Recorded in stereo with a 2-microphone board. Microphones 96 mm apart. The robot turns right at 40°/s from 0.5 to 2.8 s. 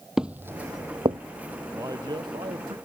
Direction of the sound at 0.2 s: 5° right (ahead or behind).